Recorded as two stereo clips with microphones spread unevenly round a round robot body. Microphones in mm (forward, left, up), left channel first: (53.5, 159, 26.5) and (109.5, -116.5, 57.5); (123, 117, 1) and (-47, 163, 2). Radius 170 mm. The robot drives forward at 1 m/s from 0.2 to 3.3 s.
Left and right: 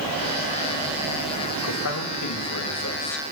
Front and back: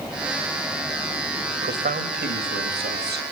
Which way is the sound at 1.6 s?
135° left.